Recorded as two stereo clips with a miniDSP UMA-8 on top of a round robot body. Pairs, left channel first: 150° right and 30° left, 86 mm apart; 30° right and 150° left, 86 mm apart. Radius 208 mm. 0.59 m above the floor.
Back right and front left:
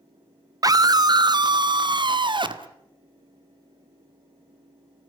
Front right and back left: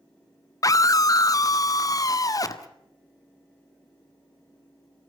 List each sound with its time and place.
0.6 s a scream: 5° left, 1.2 m; by 2.7 s 15° left, 2.5 m